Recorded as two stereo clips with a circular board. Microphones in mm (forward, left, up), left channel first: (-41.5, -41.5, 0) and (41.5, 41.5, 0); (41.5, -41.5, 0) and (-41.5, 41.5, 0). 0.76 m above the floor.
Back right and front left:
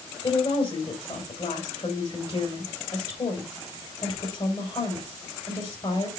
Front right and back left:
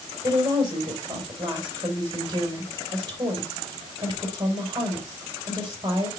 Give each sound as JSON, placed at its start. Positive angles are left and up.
{"t": 0.2, "sound": "a woman speaking", "azimuth_deg": -170, "distance_m": 3.0}